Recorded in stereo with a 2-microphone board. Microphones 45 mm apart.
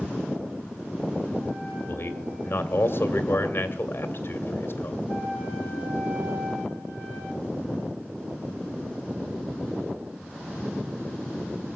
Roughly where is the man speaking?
Left.